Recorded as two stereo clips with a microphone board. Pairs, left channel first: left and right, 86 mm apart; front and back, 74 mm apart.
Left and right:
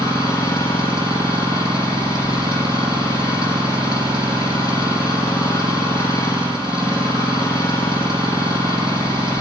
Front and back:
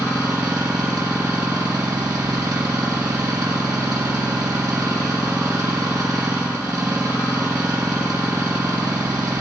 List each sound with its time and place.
0.0 s an engine running: 135° left, 8.5 m